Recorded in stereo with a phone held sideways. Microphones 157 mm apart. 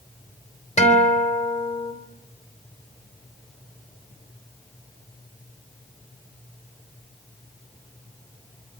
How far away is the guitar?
About 4 m.